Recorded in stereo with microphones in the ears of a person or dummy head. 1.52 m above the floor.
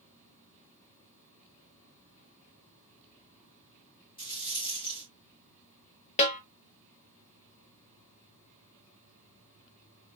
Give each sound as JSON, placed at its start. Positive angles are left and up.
{"t": 4.2, "sound": "a rattle", "side_deg": 25, "distance_m": 2.5}
{"t": 6.2, "sound": "a snare drum", "side_deg": 40, "distance_m": 1.0}